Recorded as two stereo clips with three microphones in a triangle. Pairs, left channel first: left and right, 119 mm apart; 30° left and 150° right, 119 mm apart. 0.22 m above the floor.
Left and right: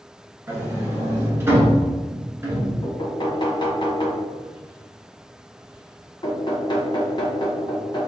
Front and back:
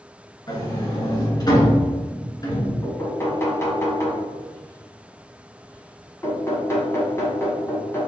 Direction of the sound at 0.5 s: 25° right.